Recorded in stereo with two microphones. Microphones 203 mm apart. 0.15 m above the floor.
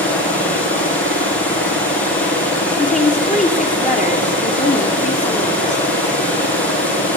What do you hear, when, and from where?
0.0 s running water: 10° left (ahead or behind), 5.5 m
2.8 s a woman speaking: 40° left (ahead or behind), 3 m